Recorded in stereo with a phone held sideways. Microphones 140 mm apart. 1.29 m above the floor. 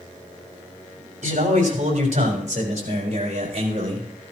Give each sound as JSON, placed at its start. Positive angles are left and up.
{"t": 1.2, "sound": "a man speaking", "side_deg": -60, "distance_m": 4.0}